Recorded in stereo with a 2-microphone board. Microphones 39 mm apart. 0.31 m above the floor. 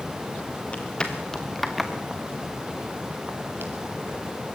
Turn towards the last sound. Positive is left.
turn(degrees=-65)  # may be behind; listen again after turning